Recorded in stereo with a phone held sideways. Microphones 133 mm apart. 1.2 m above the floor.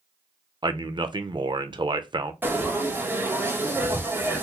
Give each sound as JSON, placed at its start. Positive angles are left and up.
{"t": 0.6, "sound": "a man speaking", "side_deg": -35, "distance_m": 0.5}
{"t": 2.4, "sound": "frying", "side_deg": -15, "distance_m": 1.0}